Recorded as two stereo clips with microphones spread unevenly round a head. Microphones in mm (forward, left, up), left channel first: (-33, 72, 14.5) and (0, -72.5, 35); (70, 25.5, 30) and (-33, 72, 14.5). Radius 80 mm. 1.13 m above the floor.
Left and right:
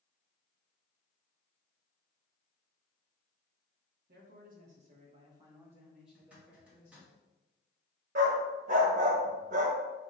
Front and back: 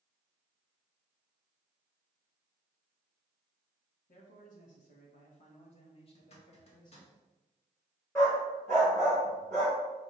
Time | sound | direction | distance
4.1 | a man speaking | 50° right | 2.0 m
6.2 | a zipper | 5° left | 1.7 m
8.2 | a dog barking | 95° right | 1.4 m